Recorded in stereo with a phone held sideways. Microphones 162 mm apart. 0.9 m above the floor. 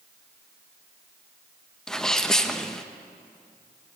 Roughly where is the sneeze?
Centre.